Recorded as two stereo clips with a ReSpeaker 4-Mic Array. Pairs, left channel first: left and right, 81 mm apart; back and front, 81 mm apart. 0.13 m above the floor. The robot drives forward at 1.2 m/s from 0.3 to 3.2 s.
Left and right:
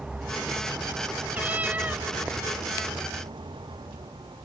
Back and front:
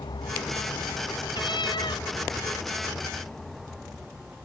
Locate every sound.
0.0 s a vehicle: 170° right; by 4.5 s 80° right
1.3 s a cat meowing: 160° right; by 2.1 s 165° right